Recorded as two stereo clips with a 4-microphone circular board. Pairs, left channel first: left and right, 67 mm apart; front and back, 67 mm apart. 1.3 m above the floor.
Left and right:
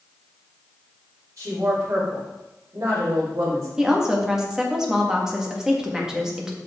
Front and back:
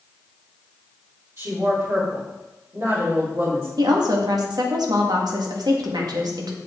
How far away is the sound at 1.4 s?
About 4 m.